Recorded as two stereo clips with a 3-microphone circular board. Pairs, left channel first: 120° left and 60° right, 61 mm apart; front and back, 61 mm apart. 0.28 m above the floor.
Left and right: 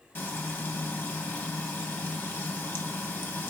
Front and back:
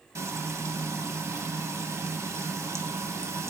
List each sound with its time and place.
0.1 s frying: 165° left, 0.6 m